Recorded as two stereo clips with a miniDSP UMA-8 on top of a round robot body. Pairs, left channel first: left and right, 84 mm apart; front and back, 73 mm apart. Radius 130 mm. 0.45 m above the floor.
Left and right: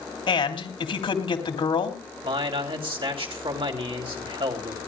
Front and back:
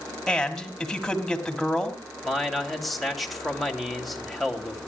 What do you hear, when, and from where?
0.3 s a man speaking: 85° left, 3 m
2.2 s a man speaking: 90° right, 3 m